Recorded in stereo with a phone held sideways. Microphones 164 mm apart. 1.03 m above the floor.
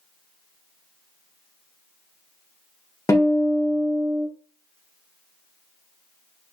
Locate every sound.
3.1 s a guitar: 20° left (ahead or behind), 0.7 m